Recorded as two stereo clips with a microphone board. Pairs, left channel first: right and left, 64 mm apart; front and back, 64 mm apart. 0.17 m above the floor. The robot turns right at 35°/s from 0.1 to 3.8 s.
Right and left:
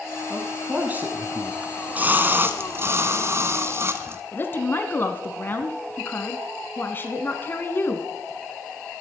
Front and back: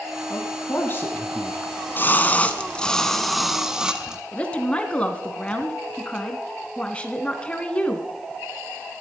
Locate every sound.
0.3 s a man speaking: 20° left, 1.5 m; by 1.5 s 60° left, 1.5 m
1.6 s a splash: 30° left, 1.1 m; by 4.2 s 105° left, 1.1 m
4.3 s a woman speaking: 60° right, 1.7 m